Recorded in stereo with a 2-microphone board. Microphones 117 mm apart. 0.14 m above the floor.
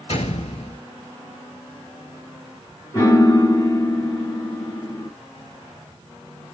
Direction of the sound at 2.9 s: 25° left (ahead or behind).